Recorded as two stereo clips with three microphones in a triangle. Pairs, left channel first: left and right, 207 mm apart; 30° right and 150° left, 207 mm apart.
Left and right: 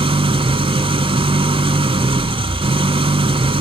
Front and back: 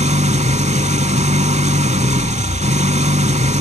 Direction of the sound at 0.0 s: 150° right.